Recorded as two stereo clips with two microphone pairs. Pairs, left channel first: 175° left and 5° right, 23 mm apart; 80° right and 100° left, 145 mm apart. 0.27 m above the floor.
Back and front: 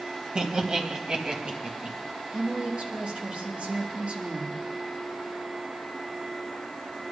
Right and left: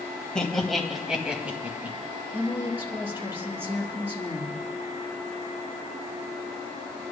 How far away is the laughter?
About 1.6 m.